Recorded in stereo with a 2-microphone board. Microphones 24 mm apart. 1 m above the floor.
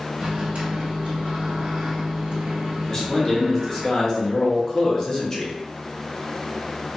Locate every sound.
0.2 s a microwave: 60° right (ahead or behind), 1.1 m
2.9 s a man speaking: 30° left (ahead or behind), 0.9 m